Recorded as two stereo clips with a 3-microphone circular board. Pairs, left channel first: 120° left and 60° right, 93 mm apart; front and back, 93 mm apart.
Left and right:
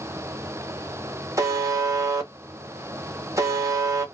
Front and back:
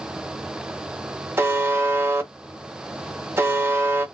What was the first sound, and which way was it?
A buzzer, 115° right.